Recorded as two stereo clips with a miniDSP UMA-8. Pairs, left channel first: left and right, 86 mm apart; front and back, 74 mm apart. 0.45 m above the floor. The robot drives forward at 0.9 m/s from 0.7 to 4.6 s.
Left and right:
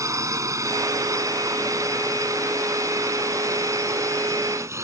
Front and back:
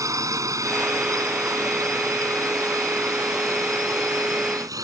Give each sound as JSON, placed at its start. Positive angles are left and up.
{"t": 0.0, "sound": "a drone", "azimuth_deg": -140}